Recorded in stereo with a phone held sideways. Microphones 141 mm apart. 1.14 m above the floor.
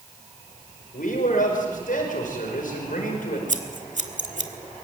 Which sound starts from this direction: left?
A man speaking, at 0.9 s.